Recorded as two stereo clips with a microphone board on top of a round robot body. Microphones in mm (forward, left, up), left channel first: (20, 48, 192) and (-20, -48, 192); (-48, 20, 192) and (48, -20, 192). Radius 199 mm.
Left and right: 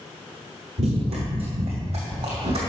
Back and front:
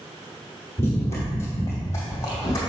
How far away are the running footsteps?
About 1.0 m.